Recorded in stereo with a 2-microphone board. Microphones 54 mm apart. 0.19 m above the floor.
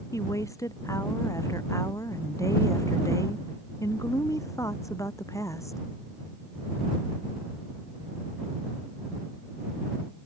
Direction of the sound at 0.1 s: 80° left.